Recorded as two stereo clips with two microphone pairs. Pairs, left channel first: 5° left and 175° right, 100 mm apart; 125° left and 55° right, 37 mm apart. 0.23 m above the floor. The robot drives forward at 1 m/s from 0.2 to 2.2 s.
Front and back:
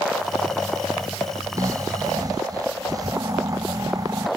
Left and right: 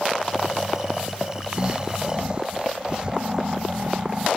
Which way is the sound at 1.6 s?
120° right.